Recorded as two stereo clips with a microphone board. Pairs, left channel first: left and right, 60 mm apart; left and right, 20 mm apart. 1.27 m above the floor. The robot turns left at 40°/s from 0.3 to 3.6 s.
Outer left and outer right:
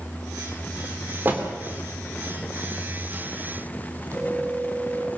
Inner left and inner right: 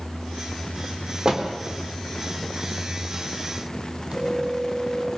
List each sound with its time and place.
1.2 s a door slam: 35° right (ahead or behind), 3 m; by 1.5 s 25° right (ahead or behind), 3 m
4.1 s a phone ringing: 50° right (ahead or behind), 5.5 m